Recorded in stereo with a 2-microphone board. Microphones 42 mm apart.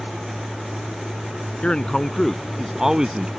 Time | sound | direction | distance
1.6 | a man speaking | 25° left (ahead or behind) | ?